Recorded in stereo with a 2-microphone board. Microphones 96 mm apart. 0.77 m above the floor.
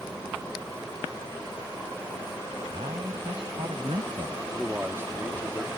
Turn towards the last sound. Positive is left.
turn(degrees=-25)  # may be behind; listen again after turning